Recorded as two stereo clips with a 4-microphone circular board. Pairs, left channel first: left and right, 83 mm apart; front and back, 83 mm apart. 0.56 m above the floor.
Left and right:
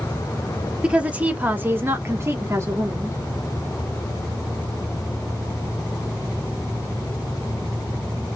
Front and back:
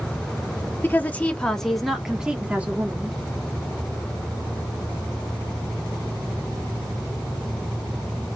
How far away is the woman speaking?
About 1.3 m.